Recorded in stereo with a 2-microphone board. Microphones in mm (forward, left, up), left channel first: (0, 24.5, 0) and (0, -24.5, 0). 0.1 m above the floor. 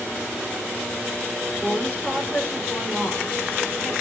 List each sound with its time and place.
1.6 s a woman speaking: 15° left (ahead or behind), 8 m